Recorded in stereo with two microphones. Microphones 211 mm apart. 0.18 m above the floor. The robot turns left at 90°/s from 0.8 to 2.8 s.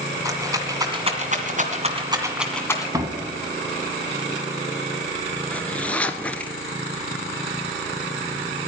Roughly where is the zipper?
Centre.